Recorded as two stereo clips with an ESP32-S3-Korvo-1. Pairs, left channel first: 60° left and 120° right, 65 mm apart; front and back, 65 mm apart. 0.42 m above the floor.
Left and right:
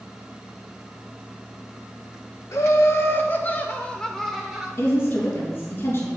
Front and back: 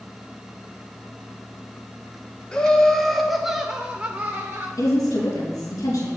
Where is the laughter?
70° left, 1.1 m; by 4.7 s 165° left, 0.9 m.